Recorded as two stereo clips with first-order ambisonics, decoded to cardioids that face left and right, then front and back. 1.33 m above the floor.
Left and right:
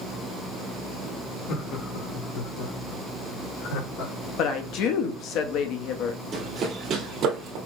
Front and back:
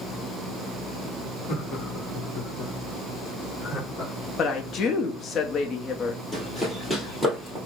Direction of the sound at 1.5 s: 50° left.